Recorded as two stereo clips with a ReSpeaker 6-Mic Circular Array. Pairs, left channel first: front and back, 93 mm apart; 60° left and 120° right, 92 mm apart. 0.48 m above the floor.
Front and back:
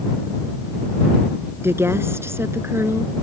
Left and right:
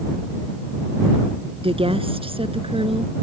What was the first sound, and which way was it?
A woman speaking, 120° right.